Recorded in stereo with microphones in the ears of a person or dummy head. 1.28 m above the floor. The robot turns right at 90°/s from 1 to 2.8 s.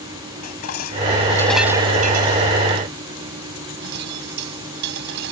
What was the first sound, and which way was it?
Dishes clattering, 50° left (ahead or behind).